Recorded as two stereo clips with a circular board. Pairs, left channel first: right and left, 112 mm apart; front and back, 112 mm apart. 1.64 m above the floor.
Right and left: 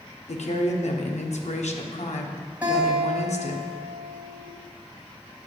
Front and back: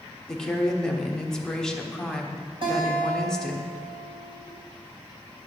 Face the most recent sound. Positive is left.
turn(degrees=165)